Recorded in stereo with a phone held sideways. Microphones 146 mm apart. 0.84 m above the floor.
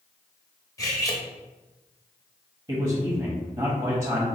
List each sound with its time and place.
0.8 s cutlery clinking: 25° left (ahead or behind), 0.7 m
2.7 s a man speaking: 30° right (ahead or behind), 0.9 m